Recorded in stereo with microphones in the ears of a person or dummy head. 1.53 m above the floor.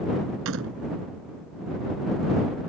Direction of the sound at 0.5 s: 75° right (ahead or behind).